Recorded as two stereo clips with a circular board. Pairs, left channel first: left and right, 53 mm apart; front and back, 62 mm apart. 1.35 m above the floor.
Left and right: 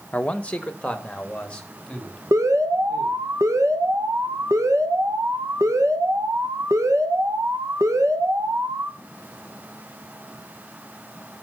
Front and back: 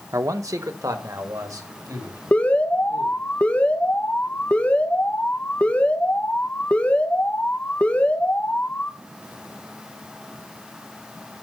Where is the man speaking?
155° left, 0.8 m; by 3.2 s 165° left, 3.5 m.